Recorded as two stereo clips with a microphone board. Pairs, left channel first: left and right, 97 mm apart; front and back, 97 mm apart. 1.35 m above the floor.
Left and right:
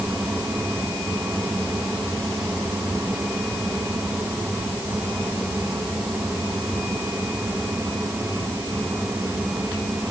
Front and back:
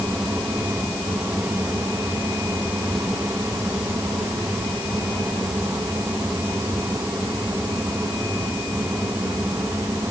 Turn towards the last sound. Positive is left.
No sound to turn to.